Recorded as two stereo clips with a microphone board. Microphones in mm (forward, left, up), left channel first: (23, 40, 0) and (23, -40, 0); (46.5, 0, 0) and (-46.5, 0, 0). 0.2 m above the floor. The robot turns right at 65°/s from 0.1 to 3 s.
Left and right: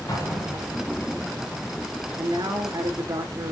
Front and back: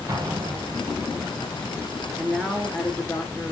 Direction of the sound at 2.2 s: 110° right.